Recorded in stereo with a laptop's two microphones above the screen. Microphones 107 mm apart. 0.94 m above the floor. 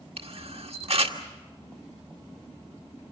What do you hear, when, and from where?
0.2 s a camera shutter: 70° right (ahead or behind), 1.7 m